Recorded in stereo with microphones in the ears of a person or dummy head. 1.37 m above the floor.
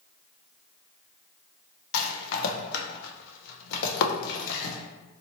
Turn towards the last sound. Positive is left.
turn(degrees=65)  # may be behind; listen again after turning